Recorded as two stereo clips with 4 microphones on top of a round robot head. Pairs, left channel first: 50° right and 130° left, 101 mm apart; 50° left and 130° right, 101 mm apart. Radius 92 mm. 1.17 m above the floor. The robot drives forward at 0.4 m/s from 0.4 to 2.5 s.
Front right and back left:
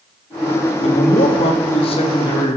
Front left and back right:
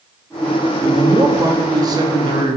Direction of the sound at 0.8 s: 65° right.